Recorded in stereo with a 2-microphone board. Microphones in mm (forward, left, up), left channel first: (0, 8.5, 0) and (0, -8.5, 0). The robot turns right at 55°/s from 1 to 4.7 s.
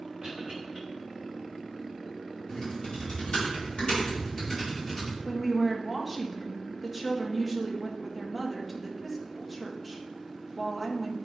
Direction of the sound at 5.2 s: Centre (ahead or behind).